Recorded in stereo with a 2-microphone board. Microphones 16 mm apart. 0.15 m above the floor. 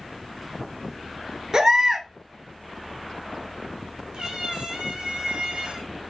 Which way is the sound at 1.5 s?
35° right (ahead or behind).